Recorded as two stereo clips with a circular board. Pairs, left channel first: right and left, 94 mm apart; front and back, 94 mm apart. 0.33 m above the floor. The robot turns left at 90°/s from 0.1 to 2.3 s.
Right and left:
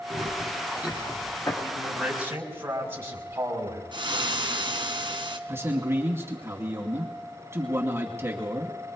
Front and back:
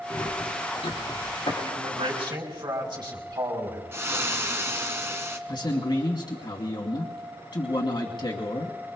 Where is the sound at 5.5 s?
30° left, 2.5 m.